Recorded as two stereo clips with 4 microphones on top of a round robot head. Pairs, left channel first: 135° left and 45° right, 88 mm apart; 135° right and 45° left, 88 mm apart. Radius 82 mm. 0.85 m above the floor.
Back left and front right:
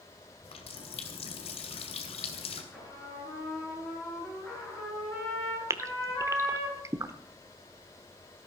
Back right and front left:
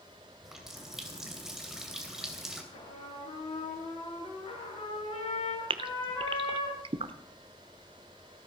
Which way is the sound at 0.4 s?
130° left.